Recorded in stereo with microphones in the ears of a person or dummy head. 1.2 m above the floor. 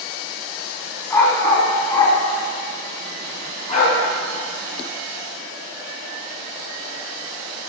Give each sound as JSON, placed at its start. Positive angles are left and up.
{"t": 1.1, "sound": "a dog barking", "side_deg": 20, "distance_m": 4.0}